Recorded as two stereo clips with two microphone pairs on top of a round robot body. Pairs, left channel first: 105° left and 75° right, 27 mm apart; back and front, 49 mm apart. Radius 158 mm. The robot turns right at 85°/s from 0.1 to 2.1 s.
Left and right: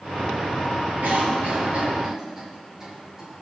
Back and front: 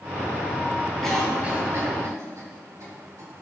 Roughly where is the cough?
Right.